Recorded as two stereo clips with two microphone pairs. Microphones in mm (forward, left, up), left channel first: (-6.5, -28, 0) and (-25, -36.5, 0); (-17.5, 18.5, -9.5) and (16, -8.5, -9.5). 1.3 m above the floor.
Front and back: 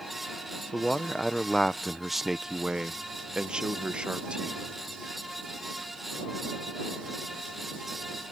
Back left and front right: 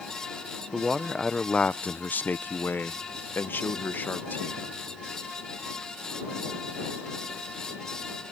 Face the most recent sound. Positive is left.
turn(degrees=180)